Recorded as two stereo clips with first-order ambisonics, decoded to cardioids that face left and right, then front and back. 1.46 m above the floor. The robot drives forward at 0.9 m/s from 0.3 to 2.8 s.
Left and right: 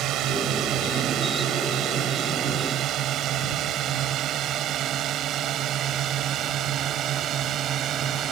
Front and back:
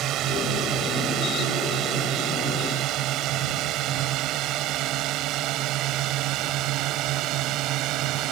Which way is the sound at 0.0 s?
135° right.